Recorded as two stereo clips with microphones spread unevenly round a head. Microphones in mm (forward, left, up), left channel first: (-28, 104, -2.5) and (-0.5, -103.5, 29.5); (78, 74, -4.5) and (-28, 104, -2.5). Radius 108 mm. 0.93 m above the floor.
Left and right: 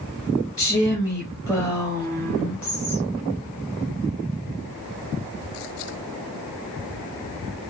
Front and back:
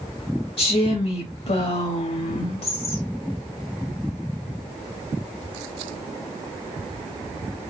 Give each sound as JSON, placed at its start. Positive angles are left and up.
{"t": 0.6, "sound": "a woman speaking", "azimuth_deg": 5, "distance_m": 1.2}